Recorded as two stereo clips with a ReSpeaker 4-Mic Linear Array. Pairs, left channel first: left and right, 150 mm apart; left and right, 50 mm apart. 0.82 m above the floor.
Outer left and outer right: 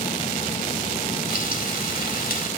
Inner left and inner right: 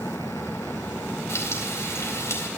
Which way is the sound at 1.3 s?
80° left.